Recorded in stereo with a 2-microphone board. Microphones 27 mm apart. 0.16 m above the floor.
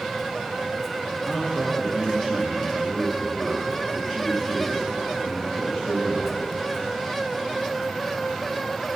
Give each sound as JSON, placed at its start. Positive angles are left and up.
{"t": 1.2, "sound": "a man speaking", "side_deg": -5, "distance_m": 5.5}